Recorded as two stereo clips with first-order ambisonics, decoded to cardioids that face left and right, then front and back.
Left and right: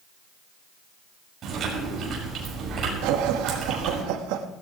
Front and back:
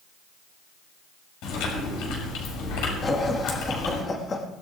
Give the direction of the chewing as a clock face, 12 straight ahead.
1 o'clock.